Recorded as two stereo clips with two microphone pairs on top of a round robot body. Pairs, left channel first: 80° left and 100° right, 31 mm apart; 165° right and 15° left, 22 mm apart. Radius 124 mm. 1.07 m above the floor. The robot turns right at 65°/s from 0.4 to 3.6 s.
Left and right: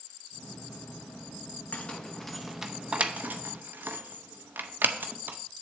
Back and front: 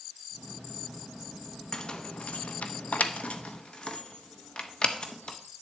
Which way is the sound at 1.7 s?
125° left.